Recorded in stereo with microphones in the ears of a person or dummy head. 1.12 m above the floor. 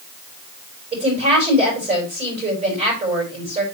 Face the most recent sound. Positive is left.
turn(degrees=-30)  # may be behind; listen again after turning